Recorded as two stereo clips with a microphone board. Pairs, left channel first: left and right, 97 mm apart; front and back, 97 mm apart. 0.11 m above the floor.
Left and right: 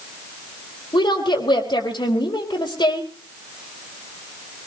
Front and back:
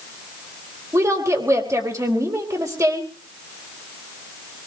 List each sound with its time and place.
0.9 s a woman speaking: 125° left, 4 m